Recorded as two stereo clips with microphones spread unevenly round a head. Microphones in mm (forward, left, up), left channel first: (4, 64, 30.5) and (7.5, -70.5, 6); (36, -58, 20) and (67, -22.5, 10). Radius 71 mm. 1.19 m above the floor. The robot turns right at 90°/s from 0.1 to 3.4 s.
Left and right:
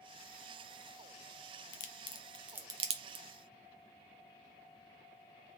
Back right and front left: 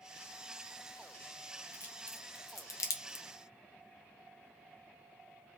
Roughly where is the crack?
Behind left.